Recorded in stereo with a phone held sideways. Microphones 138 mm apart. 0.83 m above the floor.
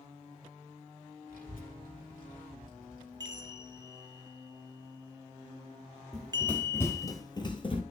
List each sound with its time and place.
1.3 s a child speaking: 85° left, 2 m
3.2 s a chime: 30° right (ahead or behind), 0.6 m
6.1 s running footsteps: 5° left (ahead or behind), 1.2 m; by 7.8 s 40° left (ahead or behind), 1.1 m